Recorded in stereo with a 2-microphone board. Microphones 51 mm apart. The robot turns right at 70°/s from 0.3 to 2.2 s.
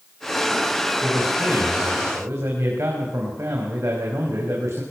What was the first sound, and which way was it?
A man speaking, 145° right.